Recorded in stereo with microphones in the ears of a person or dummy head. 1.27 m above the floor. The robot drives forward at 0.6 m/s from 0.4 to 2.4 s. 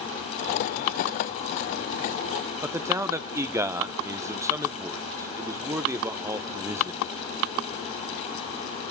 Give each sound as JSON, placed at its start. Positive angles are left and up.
{"t": 2.6, "sound": "a man speaking", "side_deg": -10, "distance_m": 0.8}